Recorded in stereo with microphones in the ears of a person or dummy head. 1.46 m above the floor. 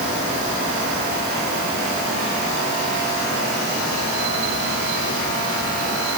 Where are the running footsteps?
No running footsteps in this recording.